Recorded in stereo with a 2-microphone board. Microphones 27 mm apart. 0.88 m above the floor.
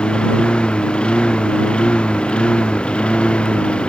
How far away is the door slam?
No door slam in this recording.